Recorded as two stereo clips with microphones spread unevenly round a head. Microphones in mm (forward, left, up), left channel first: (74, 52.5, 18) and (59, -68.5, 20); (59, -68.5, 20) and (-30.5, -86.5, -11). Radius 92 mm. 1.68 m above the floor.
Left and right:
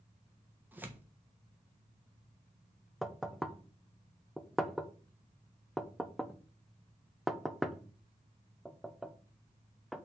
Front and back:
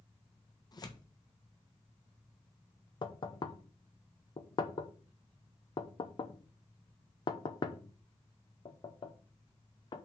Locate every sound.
0.7 s tearing paper: 25° right, 1.5 m
3.0 s knocking: 10° right, 0.9 m